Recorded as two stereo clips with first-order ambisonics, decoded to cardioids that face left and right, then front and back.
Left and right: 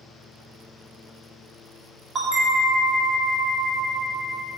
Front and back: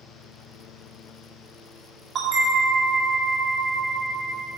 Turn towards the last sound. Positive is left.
turn(degrees=-140)